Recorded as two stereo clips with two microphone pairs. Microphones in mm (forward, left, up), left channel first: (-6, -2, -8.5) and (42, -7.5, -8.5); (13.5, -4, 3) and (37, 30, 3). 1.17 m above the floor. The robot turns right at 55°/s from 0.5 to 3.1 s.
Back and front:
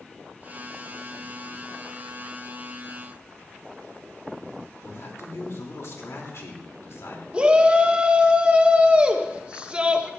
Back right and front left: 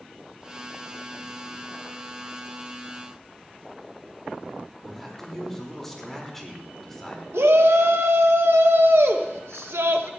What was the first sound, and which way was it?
A man speaking, 155° left.